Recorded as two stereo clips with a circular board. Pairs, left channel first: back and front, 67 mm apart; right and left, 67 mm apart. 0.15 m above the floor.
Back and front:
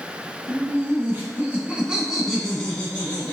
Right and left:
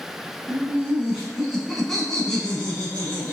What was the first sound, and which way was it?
Laughter, 20° left.